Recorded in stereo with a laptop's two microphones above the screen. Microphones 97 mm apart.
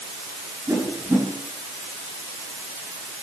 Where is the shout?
No shout in this recording.